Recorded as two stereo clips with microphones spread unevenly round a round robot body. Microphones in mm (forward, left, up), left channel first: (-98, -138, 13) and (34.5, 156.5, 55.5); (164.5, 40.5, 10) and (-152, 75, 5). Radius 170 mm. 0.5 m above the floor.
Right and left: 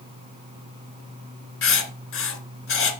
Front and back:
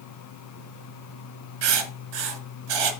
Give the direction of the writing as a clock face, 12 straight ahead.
6 o'clock.